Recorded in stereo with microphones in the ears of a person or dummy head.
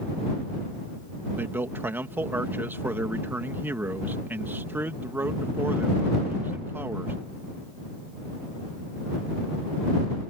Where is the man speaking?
10° right (ahead or behind).